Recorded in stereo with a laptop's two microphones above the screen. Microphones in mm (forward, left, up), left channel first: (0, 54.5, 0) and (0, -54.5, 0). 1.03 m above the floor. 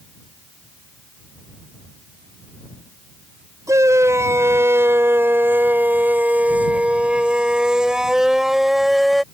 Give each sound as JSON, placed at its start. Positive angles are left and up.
{"t": 3.7, "sound": "a shout", "side_deg": -30}